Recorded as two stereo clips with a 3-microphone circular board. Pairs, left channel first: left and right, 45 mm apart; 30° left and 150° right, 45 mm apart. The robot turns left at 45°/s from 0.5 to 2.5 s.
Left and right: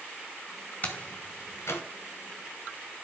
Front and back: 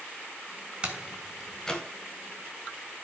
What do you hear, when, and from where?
0.8 s a door slam: 145° left, 3 m; by 1.8 s 100° left, 3 m